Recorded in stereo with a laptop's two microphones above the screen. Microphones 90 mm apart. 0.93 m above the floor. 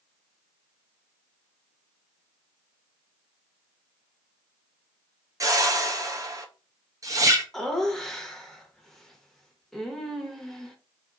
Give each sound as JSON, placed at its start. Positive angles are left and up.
{"t": 5.4, "sound": "a whoosh", "side_deg": -35, "distance_m": 0.6}
{"t": 7.5, "sound": "laughter", "side_deg": 5, "distance_m": 1.0}